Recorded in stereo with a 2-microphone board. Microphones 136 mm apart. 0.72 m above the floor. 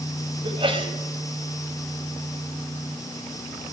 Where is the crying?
I don't hear crying.